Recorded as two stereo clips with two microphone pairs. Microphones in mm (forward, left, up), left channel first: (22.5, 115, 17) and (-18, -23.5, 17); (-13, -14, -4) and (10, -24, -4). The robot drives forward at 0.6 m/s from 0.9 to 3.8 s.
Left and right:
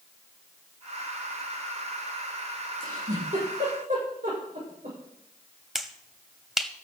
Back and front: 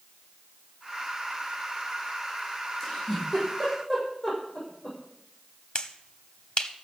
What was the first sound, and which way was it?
A giggle, 125° right.